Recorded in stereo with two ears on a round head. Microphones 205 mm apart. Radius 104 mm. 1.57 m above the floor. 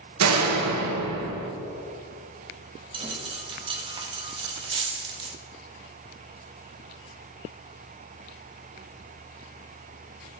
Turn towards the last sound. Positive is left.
turn(degrees=-20)  # may be behind; listen again after turning